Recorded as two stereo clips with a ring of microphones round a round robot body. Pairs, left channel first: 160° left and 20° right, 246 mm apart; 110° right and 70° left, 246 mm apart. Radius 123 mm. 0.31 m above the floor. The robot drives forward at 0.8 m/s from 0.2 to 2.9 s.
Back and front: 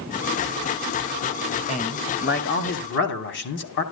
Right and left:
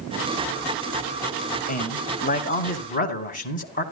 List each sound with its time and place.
1.7 s a man speaking: 155° right, 1.5 m; by 3.8 s 165° right, 2.5 m